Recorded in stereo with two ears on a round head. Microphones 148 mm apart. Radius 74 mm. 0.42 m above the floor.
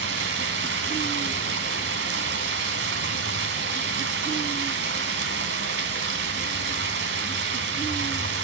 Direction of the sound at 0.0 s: 75° right (ahead or behind).